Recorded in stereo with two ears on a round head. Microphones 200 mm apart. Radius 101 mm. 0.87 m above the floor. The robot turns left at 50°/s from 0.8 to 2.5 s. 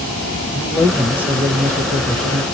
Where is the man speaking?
Centre (ahead or behind), 0.6 m; by 2.4 s 20° right (ahead or behind), 0.6 m.